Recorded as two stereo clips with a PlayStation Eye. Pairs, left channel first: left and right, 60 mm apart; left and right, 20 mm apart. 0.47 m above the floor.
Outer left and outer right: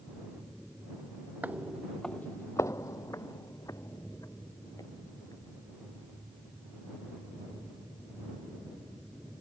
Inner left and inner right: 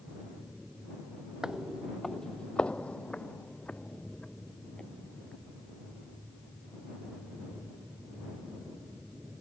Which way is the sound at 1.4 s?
30° right (ahead or behind).